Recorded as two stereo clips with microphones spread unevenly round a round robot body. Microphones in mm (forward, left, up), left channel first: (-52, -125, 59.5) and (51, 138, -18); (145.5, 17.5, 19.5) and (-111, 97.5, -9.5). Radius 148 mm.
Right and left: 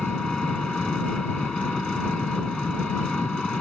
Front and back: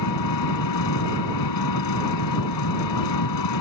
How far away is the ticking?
No ticking in this recording.